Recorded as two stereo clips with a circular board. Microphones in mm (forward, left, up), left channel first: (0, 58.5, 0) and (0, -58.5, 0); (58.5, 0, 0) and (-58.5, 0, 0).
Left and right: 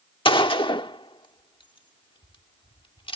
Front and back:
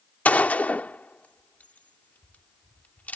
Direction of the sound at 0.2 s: 70° left.